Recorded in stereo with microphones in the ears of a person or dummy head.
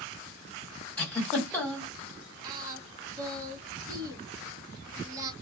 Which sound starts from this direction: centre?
A giggle, at 1.0 s.